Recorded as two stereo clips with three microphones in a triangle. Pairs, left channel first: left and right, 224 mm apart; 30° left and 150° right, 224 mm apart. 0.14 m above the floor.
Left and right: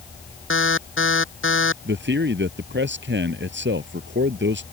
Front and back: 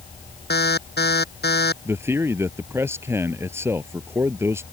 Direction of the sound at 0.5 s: 70° left.